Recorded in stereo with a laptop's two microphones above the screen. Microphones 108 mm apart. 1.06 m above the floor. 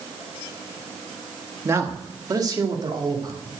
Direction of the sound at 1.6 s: 25° right (ahead or behind).